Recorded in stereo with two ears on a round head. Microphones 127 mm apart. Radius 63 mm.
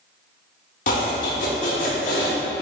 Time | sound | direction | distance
0.9 | chopping | 60° left (ahead or behind) | 1.7 m